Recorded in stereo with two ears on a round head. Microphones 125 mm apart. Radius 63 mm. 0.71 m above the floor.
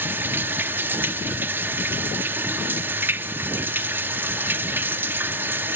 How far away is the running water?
About 0.7 m.